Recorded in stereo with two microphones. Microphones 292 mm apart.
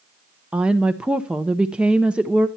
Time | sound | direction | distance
0.5 | a woman speaking | 5° right (ahead or behind) | 0.6 m